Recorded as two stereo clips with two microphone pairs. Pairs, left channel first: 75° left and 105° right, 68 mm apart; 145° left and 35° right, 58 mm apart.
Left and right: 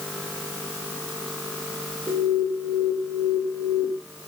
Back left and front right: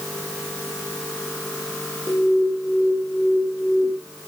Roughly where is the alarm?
Behind.